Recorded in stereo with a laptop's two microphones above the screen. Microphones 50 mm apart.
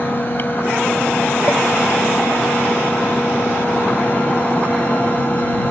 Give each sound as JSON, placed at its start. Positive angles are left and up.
{"t": 0.0, "sound": "a fan", "side_deg": 40}